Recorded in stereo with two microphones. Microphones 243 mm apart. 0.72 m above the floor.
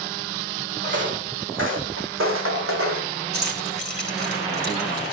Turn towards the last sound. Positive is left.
turn(degrees=-45)  # may be behind; listen again after turning